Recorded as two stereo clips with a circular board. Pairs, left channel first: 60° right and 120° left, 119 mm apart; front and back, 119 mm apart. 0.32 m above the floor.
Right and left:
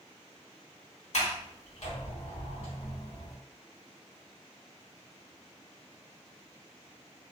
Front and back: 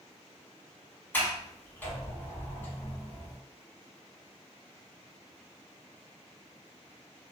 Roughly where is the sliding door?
Right.